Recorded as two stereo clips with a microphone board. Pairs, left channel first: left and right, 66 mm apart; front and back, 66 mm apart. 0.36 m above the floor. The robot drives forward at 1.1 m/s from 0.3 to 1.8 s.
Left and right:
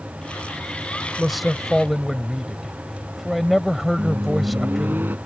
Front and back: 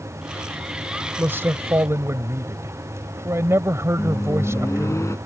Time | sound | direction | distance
1.2 | a man speaking | 175° right | ?
4.0 | a microwave | 35° right | ?